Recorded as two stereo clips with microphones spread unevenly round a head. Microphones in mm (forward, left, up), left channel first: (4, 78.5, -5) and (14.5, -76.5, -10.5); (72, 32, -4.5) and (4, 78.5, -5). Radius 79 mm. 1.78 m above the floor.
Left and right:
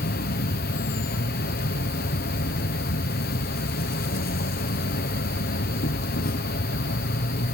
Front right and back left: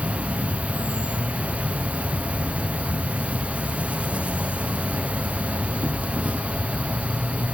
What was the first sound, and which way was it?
An insect, 70° left.